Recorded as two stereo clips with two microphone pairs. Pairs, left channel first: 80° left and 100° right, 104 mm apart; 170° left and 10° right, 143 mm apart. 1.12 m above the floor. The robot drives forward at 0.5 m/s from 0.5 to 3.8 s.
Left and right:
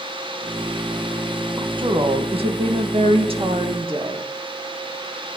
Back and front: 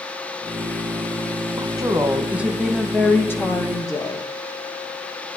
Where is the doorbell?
No doorbell in this recording.